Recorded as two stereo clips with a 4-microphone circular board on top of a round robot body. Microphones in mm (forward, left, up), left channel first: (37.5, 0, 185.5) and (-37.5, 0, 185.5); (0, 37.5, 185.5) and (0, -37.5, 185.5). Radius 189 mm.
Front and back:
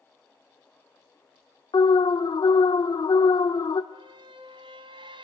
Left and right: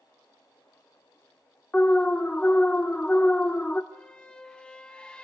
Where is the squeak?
170° left, 0.9 m.